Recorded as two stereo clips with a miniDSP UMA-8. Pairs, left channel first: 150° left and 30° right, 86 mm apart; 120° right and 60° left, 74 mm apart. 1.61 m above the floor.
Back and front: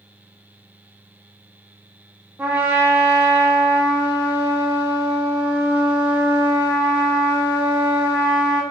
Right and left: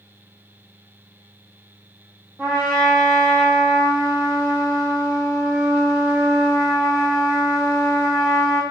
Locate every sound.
2.4 s a trumpet: 25° left, 1.1 m